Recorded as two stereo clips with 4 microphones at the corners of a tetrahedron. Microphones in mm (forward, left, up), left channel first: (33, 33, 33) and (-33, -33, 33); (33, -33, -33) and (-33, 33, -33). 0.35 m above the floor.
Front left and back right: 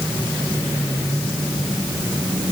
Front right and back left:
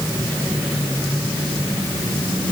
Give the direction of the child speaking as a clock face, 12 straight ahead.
No child speaking in this recording.